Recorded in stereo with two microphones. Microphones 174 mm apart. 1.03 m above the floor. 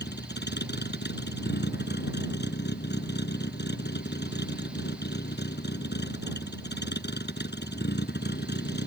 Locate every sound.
0.0 s a vehicle: 85° left